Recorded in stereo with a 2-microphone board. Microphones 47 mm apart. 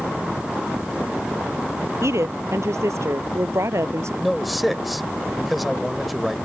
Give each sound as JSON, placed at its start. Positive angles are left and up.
{"t": 2.0, "sound": "a woman speaking", "side_deg": -80}
{"t": 4.2, "sound": "a man speaking", "side_deg": 0}